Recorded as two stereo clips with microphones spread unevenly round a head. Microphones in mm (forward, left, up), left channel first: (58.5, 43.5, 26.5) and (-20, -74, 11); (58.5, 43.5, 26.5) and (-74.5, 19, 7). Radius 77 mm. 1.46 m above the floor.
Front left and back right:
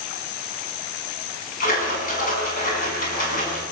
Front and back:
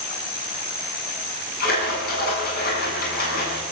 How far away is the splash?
About 8 m.